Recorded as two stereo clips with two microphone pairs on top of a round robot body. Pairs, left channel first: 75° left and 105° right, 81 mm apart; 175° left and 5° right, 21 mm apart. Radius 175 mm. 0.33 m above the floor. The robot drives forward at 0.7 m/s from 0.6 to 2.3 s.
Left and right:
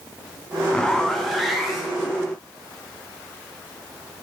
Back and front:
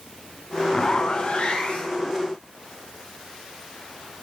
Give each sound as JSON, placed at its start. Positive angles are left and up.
{"t": 0.7, "sound": "a zipper", "azimuth_deg": 145, "distance_m": 0.7}